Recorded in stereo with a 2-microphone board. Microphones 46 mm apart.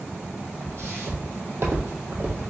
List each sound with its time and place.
0.6 s footsteps: 60° right (ahead or behind), 1.6 m; by 2.5 s 45° right (ahead or behind), 1.4 m